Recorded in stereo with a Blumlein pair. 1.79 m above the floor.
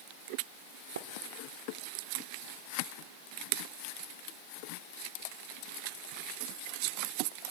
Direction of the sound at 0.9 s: 65° right.